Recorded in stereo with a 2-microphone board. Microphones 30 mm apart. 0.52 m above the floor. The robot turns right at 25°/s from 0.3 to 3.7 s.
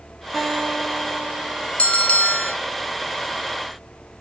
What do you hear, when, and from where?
0.3 s a guitar: straight ahead, 5 m; by 1.7 s 30° left, 5 m
1.8 s a bell: 45° left (ahead or behind), 0.8 m; by 2.5 s 55° left (ahead or behind), 0.8 m